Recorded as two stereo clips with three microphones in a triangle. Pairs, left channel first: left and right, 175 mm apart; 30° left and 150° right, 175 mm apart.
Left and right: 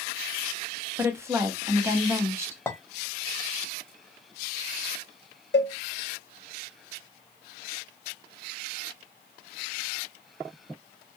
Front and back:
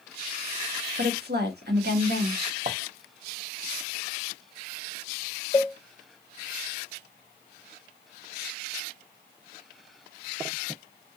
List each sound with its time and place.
1.0 s a woman speaking: 165° right, 1.0 m
2.7 s a clink: 165° left, 1.0 m
5.5 s a cowbell: 95° left, 0.9 m